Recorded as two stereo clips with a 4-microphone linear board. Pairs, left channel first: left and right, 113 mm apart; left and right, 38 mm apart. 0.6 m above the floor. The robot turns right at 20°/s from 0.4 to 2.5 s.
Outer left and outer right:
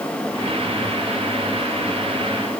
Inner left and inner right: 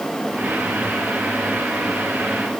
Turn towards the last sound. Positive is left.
No sound to turn to.